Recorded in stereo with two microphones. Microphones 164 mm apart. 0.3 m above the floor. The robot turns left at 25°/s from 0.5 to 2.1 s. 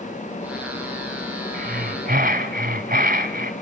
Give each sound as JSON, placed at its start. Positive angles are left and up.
{"t": 1.5, "sound": "breathing", "side_deg": -65, "distance_m": 1.4}